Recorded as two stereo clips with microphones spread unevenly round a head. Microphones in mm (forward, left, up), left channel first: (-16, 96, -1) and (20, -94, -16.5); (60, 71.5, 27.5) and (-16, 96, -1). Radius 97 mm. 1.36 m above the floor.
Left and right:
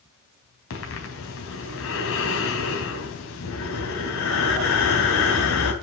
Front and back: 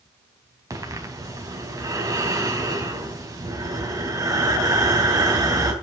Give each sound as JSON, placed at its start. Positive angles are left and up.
{"t": 0.7, "sound": "breathing", "azimuth_deg": 115, "distance_m": 4.0}